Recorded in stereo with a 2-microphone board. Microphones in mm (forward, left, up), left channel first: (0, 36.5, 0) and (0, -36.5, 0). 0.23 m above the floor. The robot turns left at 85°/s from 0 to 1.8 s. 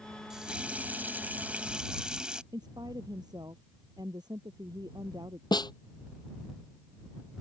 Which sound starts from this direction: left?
A snare drum, at 5.5 s.